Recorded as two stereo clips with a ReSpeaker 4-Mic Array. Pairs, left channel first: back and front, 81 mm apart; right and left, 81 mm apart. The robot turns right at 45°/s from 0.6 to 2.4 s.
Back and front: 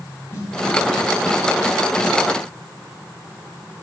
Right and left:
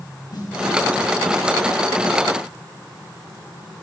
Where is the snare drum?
130° right, 3.5 m.